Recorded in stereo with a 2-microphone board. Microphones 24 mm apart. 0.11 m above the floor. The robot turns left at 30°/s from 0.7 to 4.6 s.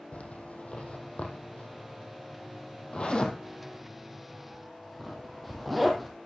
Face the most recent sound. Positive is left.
turn(degrees=0)  # may be behind; listen again after turning